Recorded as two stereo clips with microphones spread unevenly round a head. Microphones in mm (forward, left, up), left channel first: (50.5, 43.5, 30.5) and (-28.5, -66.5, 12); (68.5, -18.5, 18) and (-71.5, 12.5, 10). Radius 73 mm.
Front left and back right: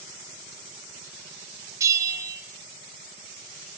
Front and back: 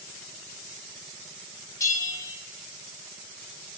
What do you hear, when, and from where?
1.8 s a bell: 60° right, 1.0 m